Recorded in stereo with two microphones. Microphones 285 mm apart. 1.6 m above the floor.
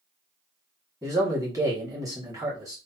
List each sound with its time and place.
1.0 s a man speaking: 10° right (ahead or behind), 1.7 m